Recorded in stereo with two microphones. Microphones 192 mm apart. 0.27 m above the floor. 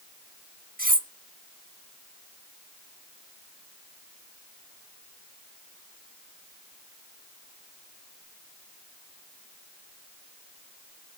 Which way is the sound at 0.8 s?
45° right (ahead or behind).